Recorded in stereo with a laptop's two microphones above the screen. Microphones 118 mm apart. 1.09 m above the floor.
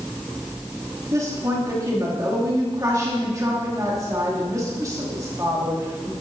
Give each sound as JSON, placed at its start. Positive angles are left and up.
{"t": 1.1, "sound": "a woman speaking", "side_deg": -30, "distance_m": 2.5}